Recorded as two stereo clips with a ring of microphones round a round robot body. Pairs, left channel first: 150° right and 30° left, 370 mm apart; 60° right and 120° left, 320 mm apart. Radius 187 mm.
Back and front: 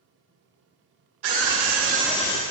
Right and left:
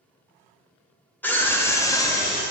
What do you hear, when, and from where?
1.2 s a scream: 25° left, 1.4 m; by 2.4 s 140° right, 0.8 m